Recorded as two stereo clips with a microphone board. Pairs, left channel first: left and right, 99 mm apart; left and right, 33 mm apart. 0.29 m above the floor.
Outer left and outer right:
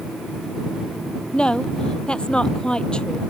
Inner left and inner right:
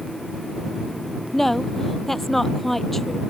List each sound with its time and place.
1.3 s a woman speaking: 10° left (ahead or behind)